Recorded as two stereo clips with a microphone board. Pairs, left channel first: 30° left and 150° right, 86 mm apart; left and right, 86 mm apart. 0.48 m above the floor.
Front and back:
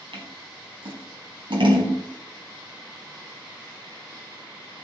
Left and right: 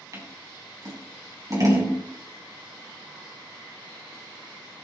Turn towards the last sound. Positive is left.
turn(degrees=-135)